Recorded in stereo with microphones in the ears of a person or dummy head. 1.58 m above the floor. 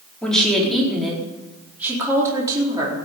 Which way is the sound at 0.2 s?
5° left (ahead or behind).